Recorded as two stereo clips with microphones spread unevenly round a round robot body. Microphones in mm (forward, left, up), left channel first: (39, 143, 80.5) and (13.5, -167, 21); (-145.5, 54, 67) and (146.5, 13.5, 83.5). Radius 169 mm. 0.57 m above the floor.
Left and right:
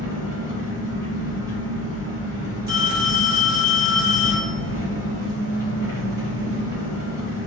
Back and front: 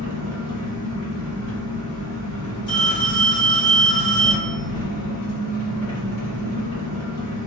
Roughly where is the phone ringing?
Behind right.